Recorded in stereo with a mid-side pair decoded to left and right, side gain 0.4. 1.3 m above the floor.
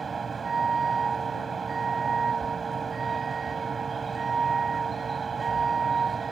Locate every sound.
0.0 s a vehicle: 40° right